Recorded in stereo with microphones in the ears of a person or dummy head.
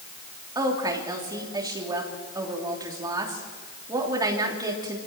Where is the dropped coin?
No dropped coin in this recording.